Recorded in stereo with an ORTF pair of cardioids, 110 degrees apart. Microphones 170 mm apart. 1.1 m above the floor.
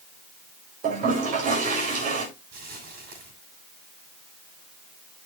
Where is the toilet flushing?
55° right, 4.5 m.